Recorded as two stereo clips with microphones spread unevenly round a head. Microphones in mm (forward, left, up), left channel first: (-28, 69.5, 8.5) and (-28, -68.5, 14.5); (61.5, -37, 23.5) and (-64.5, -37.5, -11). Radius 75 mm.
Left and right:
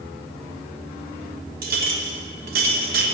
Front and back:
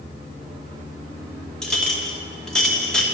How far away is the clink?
About 1.5 m.